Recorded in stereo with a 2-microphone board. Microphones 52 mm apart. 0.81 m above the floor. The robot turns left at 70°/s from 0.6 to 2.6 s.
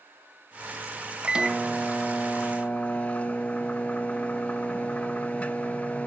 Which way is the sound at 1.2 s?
145° right.